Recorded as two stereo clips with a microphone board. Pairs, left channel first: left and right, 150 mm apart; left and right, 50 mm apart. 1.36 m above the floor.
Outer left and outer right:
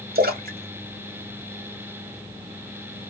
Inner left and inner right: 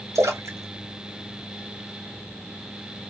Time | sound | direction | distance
0.1 | a splash | 75° right (ahead or behind) | 1.0 m